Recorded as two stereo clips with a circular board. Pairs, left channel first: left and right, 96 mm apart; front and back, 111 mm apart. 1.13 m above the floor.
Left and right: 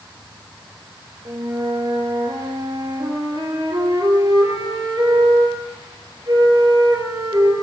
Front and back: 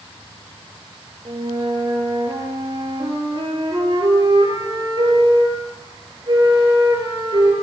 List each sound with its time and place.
1.2 s a flute: 135° right, 7.5 m